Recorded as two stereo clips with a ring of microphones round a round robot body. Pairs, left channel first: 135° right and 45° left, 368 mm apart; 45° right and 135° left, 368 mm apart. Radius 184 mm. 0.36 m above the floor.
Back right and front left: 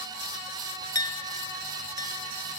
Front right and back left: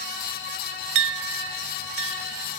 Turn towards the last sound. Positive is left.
turn(degrees=150)